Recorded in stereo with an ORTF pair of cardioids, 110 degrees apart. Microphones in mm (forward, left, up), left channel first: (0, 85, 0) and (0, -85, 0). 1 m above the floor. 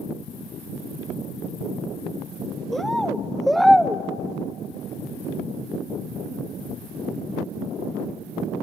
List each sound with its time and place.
2.7 s a bird: straight ahead, 0.8 m